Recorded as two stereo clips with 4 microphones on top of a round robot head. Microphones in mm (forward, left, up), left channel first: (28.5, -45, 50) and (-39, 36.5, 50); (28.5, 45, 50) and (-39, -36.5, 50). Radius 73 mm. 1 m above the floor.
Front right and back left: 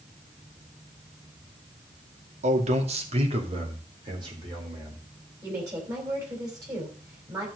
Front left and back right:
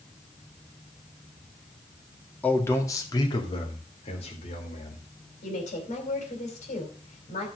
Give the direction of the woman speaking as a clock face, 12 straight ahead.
10 o'clock.